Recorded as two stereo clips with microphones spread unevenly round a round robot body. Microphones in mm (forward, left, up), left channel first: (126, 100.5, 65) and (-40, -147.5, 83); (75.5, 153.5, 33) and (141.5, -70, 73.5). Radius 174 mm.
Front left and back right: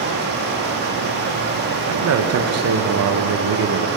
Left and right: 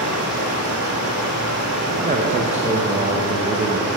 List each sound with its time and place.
0.0 s running water: 70° right, 3 m
1.9 s a man speaking: 140° right, 0.9 m